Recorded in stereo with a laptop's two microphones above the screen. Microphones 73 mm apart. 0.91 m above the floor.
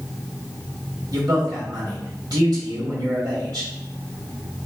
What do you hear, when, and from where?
1.1 s a man speaking: 60° right (ahead or behind), 1.4 m